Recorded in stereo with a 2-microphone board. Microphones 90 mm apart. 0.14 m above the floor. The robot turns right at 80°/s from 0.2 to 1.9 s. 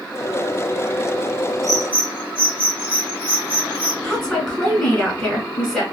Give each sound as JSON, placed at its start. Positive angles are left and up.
{"t": 1.6, "sound": "a bird", "side_deg": -40, "distance_m": 1.3}
{"t": 4.0, "sound": "a woman speaking", "side_deg": 5, "distance_m": 1.4}